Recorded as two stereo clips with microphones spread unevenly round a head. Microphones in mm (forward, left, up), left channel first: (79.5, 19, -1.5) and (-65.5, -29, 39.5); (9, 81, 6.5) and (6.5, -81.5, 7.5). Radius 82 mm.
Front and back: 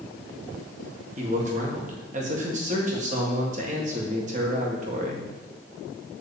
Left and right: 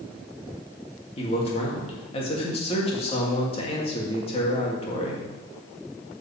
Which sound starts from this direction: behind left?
A man speaking, at 1.2 s.